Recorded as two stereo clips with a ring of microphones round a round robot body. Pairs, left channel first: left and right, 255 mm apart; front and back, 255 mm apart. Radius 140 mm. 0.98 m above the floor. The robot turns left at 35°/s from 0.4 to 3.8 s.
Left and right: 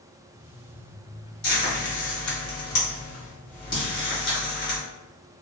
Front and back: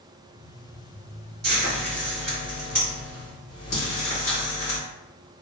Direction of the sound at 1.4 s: 135° left.